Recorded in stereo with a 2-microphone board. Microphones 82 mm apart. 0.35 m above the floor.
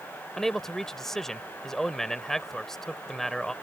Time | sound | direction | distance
0.4 | a man speaking | 5° left (ahead or behind) | ?